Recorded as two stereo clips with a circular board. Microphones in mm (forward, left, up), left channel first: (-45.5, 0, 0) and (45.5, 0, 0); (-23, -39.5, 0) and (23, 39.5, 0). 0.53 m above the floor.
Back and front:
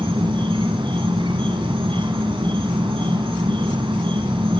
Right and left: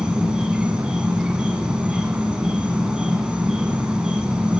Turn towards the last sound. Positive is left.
turn(degrees=-20)